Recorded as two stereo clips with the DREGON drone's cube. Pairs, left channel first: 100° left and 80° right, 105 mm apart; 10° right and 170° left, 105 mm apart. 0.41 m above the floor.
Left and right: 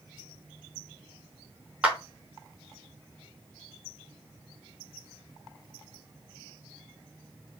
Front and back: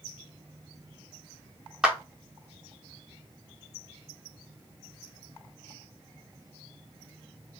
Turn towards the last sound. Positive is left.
turn(degrees=-130)